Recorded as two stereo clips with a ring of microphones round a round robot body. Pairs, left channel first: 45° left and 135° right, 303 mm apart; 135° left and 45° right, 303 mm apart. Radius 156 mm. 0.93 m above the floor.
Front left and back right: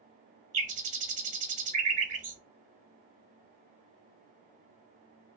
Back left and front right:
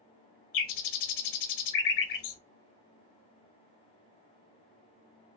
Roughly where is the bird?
Behind.